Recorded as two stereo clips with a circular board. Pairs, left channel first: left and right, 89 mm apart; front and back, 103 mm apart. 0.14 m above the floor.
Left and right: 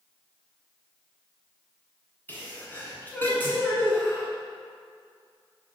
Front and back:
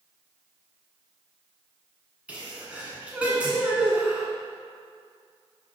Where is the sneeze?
120° left, 1.7 m.